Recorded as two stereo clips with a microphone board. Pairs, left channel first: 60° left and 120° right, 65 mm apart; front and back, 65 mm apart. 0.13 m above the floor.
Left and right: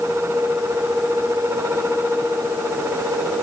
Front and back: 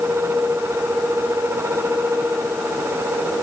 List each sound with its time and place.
Only background noise.